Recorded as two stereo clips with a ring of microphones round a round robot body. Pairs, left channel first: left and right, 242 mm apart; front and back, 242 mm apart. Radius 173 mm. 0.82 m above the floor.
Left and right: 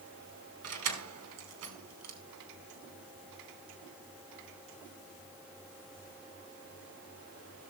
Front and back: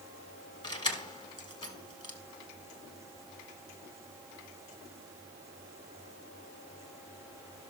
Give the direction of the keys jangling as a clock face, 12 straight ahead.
2 o'clock.